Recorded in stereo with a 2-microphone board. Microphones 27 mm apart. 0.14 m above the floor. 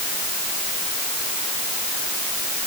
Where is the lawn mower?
No lawn mower in this recording.